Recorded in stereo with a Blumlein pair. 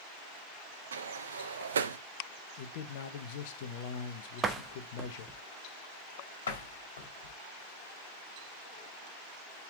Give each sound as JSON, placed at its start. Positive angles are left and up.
{"t": 0.9, "sound": "a sliding door", "azimuth_deg": -65, "distance_m": 0.6}
{"t": 2.6, "sound": "a man speaking", "azimuth_deg": 50, "distance_m": 1.0}
{"t": 4.4, "sound": "a door slam", "azimuth_deg": -15, "distance_m": 1.0}
{"t": 6.5, "sound": "a door slam", "azimuth_deg": 65, "distance_m": 2.0}